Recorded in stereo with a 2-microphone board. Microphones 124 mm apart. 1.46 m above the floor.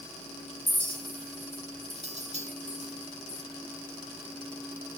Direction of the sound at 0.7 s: 65° right (ahead or behind).